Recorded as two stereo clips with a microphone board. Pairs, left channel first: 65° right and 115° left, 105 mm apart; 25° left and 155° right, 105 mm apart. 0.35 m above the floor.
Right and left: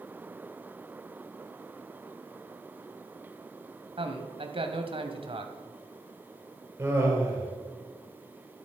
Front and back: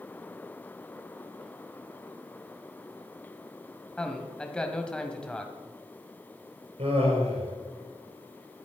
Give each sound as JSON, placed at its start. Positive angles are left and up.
{"t": 4.0, "sound": "a man speaking", "azimuth_deg": 100, "distance_m": 2.0}
{"t": 6.8, "sound": "laughter", "azimuth_deg": -175, "distance_m": 5.5}